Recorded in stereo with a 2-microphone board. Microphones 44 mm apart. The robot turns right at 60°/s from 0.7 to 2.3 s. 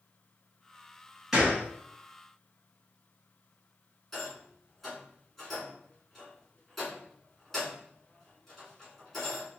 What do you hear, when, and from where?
1.3 s a gunshot: 10° right (ahead or behind), 1.5 m; by 1.6 s 20° right (ahead or behind), 1.5 m
4.1 s a rattle: 5° left (ahead or behind), 1.7 m